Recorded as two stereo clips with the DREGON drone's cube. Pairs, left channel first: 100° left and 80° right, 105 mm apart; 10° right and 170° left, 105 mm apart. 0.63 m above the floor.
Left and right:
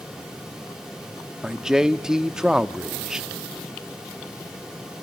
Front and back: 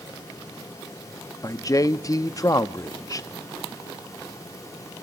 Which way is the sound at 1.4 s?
Straight ahead.